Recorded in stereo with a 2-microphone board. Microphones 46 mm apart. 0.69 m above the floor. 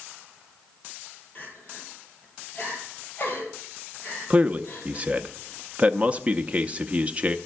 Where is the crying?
40° left (ahead or behind), 2.5 m.